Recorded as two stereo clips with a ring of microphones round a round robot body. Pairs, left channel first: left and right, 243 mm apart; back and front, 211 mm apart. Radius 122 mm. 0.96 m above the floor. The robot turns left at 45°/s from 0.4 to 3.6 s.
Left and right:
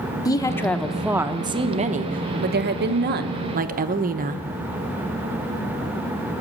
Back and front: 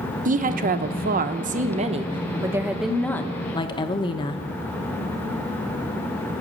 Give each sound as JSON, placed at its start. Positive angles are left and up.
{"t": 0.2, "sound": "a woman speaking", "azimuth_deg": 20, "distance_m": 0.8}